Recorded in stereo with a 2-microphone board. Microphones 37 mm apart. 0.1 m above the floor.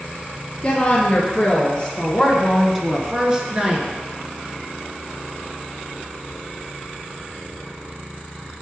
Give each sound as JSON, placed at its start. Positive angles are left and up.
{"t": 0.6, "sound": "a woman speaking", "side_deg": 30, "distance_m": 1.6}